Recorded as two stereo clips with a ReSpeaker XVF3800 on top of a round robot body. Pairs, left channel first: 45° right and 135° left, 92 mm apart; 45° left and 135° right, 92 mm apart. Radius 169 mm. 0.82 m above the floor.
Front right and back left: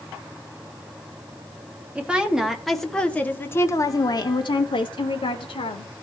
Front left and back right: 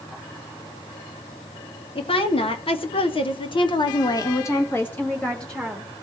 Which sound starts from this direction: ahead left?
A woman speaking, at 1.9 s.